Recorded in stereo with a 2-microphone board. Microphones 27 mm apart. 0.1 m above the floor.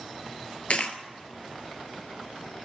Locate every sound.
0.7 s a dropped coin: 50° left (ahead or behind), 0.7 m